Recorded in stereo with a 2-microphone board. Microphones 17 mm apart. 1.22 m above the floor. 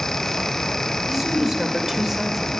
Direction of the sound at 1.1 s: 5° right (ahead or behind).